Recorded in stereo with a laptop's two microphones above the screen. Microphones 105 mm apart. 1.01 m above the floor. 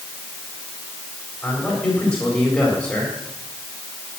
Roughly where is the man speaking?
Centre.